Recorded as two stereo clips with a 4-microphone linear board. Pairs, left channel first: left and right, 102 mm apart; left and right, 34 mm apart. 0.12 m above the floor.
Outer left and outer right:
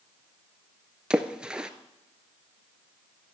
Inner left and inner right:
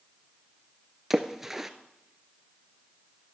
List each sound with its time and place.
1.1 s a splash: 5° right (ahead or behind), 0.9 m